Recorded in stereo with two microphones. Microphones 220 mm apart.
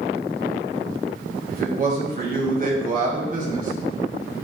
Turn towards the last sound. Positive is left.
turn(degrees=-40)  # may be behind; listen again after turning